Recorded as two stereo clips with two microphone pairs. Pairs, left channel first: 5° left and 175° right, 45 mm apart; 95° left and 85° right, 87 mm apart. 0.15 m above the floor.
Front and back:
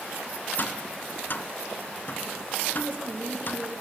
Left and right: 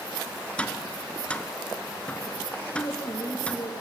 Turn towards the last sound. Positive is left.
turn(degrees=140)